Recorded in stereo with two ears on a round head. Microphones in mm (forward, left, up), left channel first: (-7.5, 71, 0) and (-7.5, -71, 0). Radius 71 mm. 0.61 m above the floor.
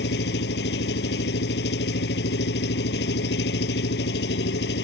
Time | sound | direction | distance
0.0 | an engine running | 80° left | ?